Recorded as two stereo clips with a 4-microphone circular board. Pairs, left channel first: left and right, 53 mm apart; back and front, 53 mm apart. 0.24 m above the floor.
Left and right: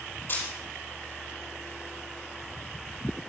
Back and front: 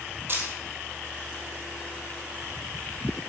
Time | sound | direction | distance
0.3 | a camera shutter | 45° left | 4.5 m